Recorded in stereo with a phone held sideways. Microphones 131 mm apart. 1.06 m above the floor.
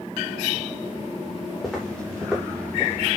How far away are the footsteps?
About 9 m.